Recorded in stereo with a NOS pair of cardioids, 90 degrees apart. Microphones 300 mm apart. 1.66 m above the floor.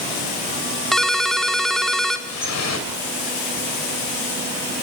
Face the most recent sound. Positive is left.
turn(degrees=60)